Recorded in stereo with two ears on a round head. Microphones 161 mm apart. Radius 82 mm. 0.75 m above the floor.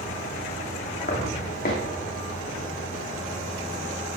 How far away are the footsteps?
About 2 m.